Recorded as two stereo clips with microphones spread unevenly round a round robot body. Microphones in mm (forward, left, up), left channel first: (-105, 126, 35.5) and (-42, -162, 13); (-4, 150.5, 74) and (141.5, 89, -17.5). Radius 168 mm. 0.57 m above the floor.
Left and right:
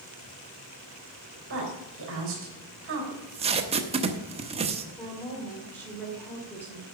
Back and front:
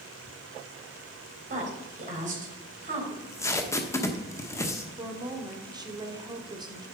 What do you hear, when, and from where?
1.5 s a woman speaking: 30° right, 3.5 m
3.1 s tape being pulled: 75° right, 1.0 m
5.0 s a woman speaking: 15° left, 1.9 m